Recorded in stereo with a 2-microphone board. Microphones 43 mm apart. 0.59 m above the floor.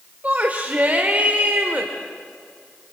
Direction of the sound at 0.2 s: 35° right (ahead or behind).